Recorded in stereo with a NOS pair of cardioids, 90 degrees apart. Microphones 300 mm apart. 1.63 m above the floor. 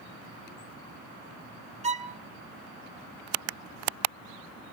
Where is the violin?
20° right, 0.9 m.